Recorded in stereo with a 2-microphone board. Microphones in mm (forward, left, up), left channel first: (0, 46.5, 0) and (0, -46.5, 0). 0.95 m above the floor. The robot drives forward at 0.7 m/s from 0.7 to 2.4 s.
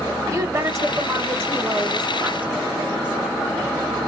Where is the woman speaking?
35° right (ahead or behind), 1.1 m; by 3.4 s 20° right (ahead or behind), 2 m.